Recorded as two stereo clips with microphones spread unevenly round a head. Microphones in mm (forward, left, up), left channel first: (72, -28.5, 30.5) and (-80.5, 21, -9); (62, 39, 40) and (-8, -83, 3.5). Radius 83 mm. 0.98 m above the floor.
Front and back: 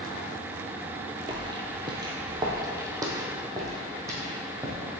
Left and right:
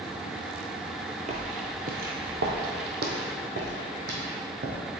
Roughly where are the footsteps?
Behind right.